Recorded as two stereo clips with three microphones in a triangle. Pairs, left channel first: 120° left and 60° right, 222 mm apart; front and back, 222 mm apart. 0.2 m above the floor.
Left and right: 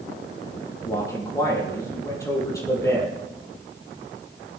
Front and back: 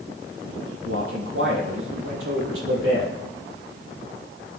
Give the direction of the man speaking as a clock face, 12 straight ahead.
5 o'clock.